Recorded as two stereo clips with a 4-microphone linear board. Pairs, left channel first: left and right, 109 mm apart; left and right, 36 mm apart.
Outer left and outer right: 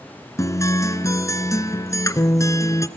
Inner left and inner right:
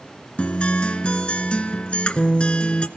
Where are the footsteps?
I don't hear footsteps.